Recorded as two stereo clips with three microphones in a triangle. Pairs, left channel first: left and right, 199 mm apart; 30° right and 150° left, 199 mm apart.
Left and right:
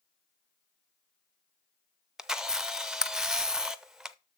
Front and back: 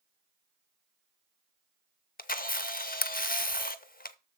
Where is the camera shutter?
5° right, 0.5 m.